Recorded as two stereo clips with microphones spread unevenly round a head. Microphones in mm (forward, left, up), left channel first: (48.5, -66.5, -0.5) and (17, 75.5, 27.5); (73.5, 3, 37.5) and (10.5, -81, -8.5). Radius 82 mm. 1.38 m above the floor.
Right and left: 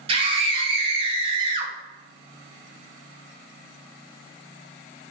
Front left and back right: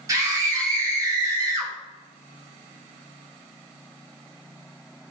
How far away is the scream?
About 1.1 m.